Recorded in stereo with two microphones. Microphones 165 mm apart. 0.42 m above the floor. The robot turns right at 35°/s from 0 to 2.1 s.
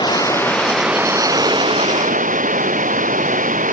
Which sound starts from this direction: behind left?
Running water, at 0.0 s.